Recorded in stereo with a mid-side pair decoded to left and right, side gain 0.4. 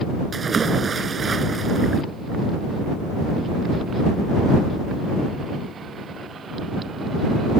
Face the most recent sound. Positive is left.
turn(degrees=-45)